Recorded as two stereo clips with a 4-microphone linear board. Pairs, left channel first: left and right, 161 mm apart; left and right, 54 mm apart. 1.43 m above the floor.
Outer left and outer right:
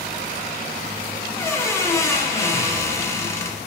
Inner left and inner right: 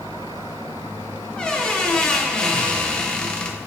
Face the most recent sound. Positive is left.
turn(degrees=15)  # may be behind; listen again after turning